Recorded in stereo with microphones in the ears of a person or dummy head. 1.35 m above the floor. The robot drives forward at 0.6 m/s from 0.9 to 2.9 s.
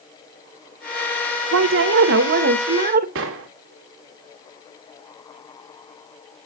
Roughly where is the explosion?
Right.